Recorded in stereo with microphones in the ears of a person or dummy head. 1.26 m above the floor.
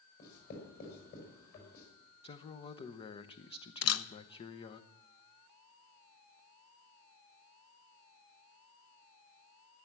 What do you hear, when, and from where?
0.2 s writing: 50° left (ahead or behind), 5.5 m
2.2 s a man speaking: 30° left (ahead or behind), 0.8 m
3.8 s a camera shutter: 80° left, 0.7 m